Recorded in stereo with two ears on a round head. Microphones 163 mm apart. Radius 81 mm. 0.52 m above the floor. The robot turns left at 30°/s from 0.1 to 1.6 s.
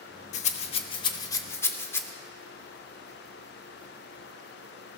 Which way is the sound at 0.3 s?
40° left (ahead or behind).